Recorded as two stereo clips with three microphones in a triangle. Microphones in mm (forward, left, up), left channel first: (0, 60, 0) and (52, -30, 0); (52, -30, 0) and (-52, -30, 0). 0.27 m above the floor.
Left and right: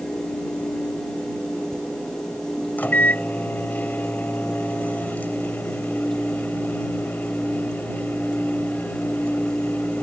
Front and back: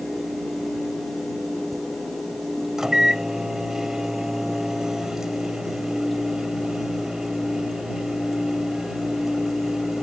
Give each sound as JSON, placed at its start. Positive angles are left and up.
{"t": 2.8, "sound": "a microwave", "azimuth_deg": 110}